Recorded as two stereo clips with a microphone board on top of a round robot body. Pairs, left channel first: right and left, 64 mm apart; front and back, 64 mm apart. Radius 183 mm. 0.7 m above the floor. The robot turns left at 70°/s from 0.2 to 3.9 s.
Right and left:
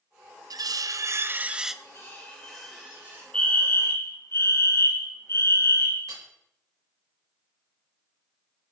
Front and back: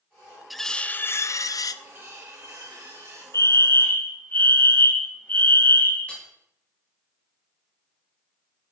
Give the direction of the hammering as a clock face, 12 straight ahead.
10 o'clock.